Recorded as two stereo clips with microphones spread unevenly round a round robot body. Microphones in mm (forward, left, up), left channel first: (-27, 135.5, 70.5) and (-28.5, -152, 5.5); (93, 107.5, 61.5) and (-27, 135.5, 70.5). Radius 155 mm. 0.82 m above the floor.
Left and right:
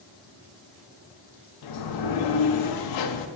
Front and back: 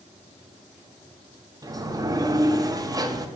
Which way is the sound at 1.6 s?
100° left.